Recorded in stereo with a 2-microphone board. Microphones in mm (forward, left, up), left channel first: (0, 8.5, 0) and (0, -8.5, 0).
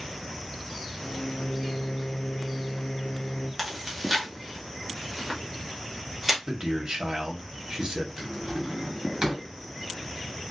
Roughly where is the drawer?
Right.